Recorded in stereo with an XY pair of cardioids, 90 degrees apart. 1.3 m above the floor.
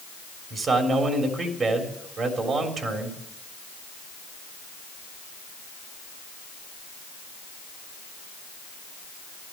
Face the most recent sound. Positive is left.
turn(degrees=-55)